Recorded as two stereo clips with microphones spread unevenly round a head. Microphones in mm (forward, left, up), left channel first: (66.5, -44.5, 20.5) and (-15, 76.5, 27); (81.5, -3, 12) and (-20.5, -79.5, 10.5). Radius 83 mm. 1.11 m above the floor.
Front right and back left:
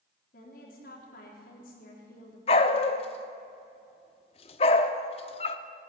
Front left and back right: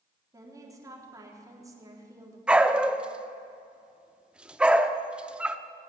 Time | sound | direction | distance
0.3 | a woman speaking | 80° right | 3.5 m
2.5 | a dog barking | 65° right | 0.7 m